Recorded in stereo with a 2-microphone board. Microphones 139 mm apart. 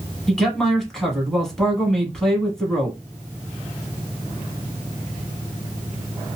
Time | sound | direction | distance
0.3 | a man speaking | 5° left (ahead or behind) | 1.3 m